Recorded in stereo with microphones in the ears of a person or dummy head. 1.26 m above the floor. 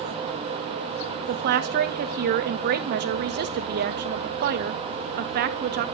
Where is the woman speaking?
50° right (ahead or behind), 0.7 m.